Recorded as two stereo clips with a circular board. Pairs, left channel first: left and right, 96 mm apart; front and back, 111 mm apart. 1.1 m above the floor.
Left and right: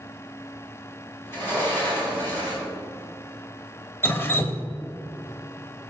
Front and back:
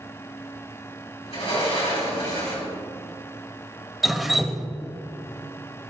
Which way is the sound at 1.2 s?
25° left.